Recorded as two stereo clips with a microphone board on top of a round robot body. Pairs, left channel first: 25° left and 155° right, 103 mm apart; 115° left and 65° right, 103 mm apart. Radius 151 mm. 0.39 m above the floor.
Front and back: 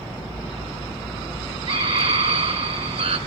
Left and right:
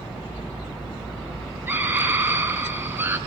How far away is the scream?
About 5 m.